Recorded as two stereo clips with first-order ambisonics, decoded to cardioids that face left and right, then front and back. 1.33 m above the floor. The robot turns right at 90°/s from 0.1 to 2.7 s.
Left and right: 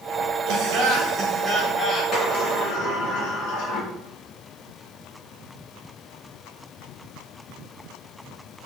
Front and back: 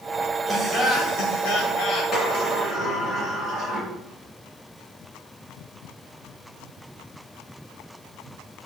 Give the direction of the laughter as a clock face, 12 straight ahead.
3 o'clock.